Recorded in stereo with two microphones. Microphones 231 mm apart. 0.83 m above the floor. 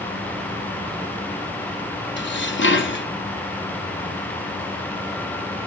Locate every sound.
2.2 s dishes clattering: 55° left (ahead or behind), 0.7 m